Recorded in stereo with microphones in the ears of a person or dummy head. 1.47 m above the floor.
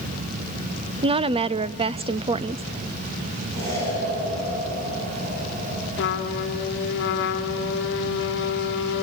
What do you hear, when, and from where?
1.0 s a woman speaking: 25° right (ahead or behind), 0.5 m
3.5 s an explosion: 55° right (ahead or behind), 10 m
6.0 s a trumpet: 55° left (ahead or behind), 1.6 m